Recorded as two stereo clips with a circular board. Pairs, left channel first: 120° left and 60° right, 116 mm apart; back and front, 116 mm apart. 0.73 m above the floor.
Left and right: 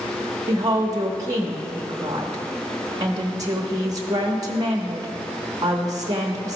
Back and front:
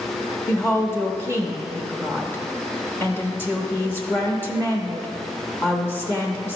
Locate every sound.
0.5 s a woman speaking: 115° right, 0.8 m